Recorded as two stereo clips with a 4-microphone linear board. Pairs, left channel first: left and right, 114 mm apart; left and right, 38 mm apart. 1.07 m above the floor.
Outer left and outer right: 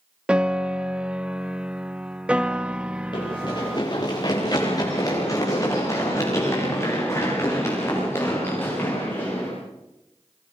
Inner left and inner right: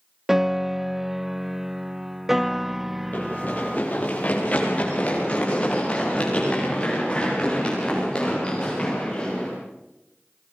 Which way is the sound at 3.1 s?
45° left (ahead or behind).